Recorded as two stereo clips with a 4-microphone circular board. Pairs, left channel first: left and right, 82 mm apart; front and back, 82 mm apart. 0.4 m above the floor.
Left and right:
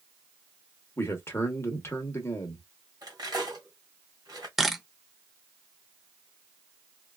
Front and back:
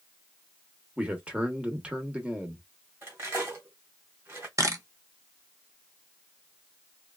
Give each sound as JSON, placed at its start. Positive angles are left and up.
{"t": 1.0, "sound": "a man speaking", "azimuth_deg": 115, "distance_m": 0.9}
{"t": 3.0, "sound": "cutlery clinking", "azimuth_deg": -120, "distance_m": 1.4}
{"t": 4.6, "sound": "a camera shutter", "azimuth_deg": -175, "distance_m": 0.6}